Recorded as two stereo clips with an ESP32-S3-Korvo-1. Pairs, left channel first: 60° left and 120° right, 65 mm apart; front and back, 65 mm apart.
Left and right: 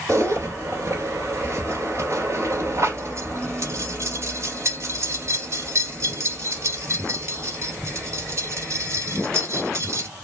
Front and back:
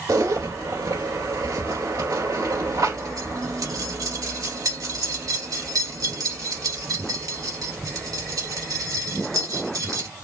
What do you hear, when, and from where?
0.1 s a zipper: 160° right, 2.5 m